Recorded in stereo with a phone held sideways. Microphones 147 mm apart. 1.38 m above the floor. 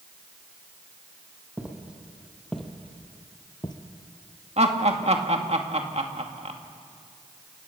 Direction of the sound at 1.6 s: 10° right (ahead or behind).